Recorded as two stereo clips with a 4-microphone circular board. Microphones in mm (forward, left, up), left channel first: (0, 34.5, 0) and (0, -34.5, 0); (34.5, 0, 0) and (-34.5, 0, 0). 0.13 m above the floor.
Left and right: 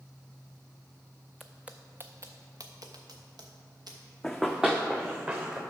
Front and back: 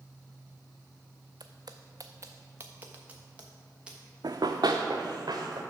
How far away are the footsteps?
About 0.5 m.